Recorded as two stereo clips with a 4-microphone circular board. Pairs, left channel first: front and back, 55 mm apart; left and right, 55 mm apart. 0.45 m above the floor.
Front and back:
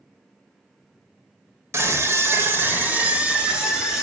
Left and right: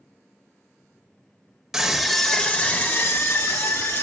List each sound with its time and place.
1.7 s a scream: 170° right, 1.6 m; by 4.0 s 105° left, 2 m